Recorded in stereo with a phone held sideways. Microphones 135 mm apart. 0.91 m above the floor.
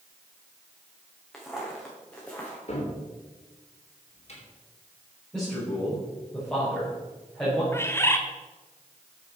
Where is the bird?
20° left (ahead or behind), 1.1 m.